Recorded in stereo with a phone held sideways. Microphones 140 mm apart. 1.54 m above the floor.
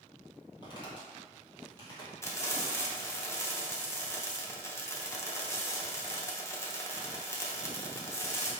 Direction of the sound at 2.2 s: 20° left (ahead or behind).